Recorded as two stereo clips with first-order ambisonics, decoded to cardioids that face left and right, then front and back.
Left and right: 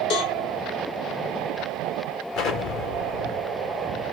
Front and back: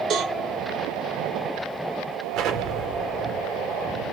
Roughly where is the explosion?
Behind left.